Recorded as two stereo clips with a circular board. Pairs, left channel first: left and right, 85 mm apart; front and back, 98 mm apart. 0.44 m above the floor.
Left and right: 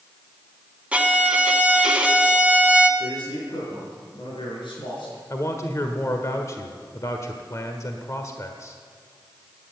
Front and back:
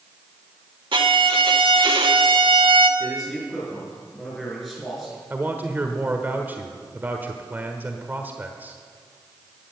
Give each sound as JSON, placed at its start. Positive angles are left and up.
{"t": 0.9, "sound": "a violin", "azimuth_deg": -165, "distance_m": 1.3}
{"t": 3.0, "sound": "a man speaking", "azimuth_deg": 90, "distance_m": 6.0}
{"t": 5.3, "sound": "a man speaking", "azimuth_deg": 120, "distance_m": 1.3}